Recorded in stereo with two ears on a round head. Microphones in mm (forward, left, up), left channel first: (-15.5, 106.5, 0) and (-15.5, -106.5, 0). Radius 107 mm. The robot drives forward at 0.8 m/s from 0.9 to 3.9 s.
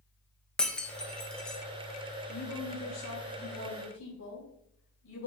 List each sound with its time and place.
0.6 s breaking glass: 5° left (ahead or behind), 1.0 m
2.3 s a woman speaking: 75° left (ahead or behind), 2.5 m; by 5.3 s 55° left (ahead or behind), 3 m